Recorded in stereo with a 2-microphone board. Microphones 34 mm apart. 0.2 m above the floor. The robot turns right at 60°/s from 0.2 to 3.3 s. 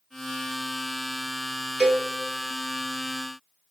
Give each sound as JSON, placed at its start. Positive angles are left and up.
{"t": 1.8, "sound": "a cowbell", "side_deg": -25, "distance_m": 1.0}